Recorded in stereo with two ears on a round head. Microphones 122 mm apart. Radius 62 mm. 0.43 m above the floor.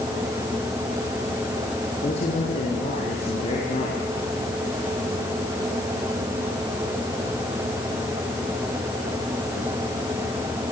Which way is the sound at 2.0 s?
50° left (ahead or behind).